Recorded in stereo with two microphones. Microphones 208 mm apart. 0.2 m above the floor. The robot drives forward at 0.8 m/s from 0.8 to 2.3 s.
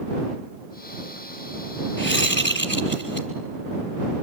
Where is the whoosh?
65° left (ahead or behind), 3.5 m; by 3.3 s 60° left (ahead or behind), 3.5 m.